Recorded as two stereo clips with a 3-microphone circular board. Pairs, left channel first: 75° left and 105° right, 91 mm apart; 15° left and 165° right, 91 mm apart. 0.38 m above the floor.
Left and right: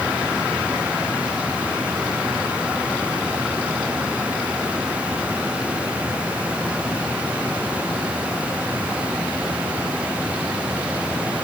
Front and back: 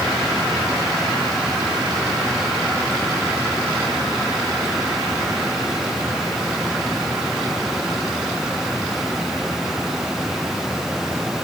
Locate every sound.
Only background noise.